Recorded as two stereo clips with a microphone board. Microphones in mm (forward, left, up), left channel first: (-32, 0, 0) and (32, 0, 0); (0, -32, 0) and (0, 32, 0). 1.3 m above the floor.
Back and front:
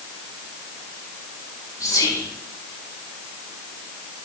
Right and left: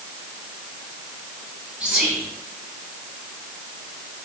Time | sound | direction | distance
1.8 | whispering | 160° left | 3 m